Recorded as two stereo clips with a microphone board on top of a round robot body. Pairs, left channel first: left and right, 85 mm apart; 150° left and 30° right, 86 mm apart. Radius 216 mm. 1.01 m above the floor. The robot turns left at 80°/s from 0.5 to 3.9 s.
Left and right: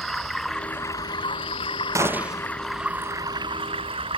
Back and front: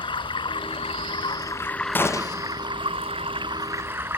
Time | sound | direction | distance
0.0 | running water | 175° left | ?
1.9 | a gunshot | 145° right | ?